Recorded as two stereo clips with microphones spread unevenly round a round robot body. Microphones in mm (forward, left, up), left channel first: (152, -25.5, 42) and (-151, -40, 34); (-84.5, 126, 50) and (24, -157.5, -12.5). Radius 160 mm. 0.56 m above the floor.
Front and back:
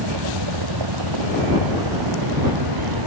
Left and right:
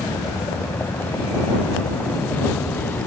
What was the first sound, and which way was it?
A vehicle, 165° right.